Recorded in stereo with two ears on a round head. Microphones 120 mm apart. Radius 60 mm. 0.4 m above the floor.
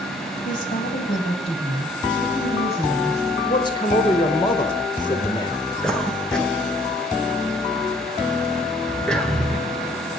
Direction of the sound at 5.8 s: 5° left (ahead or behind).